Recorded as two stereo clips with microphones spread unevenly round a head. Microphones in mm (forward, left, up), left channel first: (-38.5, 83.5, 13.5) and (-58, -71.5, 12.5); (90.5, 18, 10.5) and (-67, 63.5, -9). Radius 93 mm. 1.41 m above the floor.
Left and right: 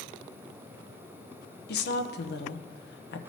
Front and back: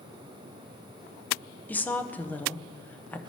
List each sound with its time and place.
1.7 s a woman speaking: 60° left, 0.6 m